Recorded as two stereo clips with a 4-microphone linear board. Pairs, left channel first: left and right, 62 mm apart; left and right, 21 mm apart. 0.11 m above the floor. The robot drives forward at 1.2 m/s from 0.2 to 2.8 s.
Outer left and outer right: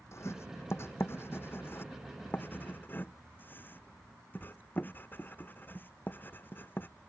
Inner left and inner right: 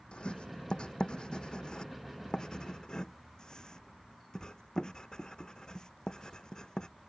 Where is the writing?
45° left (ahead or behind); by 6.9 s 30° left (ahead or behind).